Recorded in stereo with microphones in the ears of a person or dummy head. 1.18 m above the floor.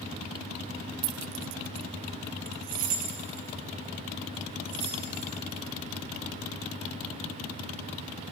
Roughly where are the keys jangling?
Right.